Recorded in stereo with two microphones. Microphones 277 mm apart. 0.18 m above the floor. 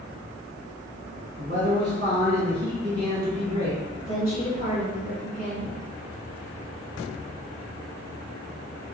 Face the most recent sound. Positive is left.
turn(degrees=30)  # may be behind; listen again after turning